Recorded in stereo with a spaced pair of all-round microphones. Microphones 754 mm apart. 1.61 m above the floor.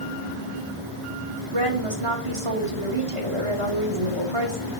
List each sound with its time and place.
1.5 s a woman speaking: 40° right (ahead or behind), 3 m